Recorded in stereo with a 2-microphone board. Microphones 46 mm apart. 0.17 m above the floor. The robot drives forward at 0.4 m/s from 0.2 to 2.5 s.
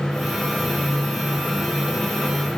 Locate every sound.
Only background noise.